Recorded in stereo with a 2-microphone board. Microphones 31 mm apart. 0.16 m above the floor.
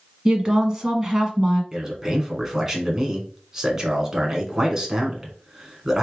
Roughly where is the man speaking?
Centre.